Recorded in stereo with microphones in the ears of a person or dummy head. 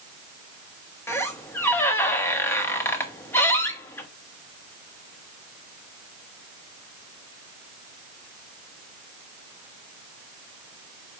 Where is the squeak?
15° left (ahead or behind), 1.1 m.